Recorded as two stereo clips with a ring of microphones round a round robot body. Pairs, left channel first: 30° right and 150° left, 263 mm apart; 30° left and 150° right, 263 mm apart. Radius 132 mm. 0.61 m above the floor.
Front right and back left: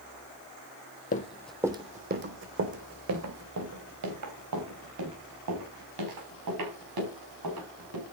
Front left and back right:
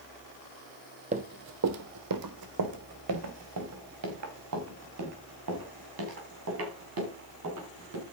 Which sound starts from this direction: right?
Running footsteps, at 1.1 s.